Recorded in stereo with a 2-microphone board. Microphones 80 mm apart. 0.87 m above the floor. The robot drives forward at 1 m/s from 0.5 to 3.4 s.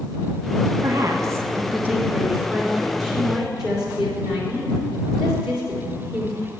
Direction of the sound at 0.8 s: 40° right (ahead or behind).